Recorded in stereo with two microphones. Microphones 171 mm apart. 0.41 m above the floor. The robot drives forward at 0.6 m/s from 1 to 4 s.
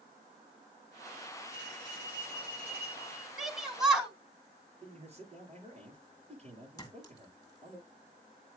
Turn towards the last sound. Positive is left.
turn(degrees=20)  # may be behind; listen again after turning